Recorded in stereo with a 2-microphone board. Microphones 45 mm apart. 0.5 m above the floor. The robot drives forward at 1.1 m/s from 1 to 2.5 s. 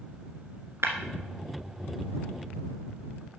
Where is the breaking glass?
75° right (ahead or behind), 1.5 m.